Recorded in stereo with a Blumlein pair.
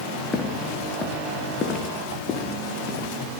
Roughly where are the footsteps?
Ahead.